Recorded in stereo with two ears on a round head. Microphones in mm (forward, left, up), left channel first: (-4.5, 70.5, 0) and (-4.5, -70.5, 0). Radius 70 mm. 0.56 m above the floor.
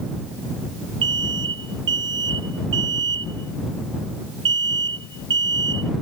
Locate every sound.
1.0 s an alarm: 85° right